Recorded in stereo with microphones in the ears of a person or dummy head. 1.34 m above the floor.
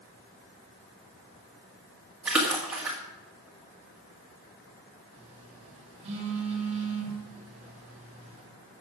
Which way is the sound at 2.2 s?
5° right (ahead or behind).